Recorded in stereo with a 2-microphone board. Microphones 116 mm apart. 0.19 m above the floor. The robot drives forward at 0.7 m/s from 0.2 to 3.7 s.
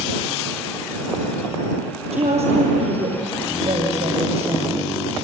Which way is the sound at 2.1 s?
70° right (ahead or behind).